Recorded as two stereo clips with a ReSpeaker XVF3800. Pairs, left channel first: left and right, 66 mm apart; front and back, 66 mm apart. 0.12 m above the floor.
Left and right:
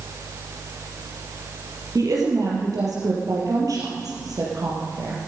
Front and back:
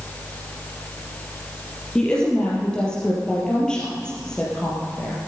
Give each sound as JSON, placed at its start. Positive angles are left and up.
{"t": 1.9, "sound": "a woman speaking", "azimuth_deg": -75, "distance_m": 3.5}